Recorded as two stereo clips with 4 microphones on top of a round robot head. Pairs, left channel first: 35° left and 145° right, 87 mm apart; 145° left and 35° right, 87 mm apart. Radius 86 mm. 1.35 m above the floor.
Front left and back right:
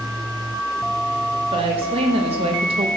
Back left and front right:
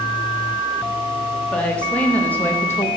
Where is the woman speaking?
135° right, 2.5 m; by 2.9 s 155° right, 1.2 m.